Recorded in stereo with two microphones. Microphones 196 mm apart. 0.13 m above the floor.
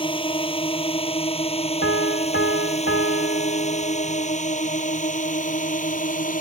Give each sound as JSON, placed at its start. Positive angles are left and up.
{"t": 0.0, "sound": "a drone", "side_deg": 25}
{"t": 1.8, "sound": "a piano", "side_deg": 80}